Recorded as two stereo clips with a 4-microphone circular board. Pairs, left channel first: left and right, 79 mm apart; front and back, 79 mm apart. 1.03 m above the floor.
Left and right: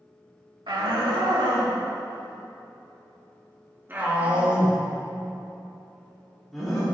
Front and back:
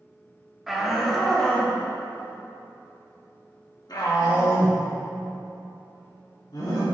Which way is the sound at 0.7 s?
90° right.